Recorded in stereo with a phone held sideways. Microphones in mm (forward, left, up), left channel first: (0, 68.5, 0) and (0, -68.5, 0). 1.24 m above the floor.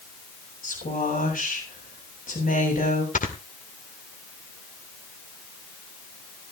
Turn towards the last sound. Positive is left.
turn(degrees=70)  # may be behind; listen again after turning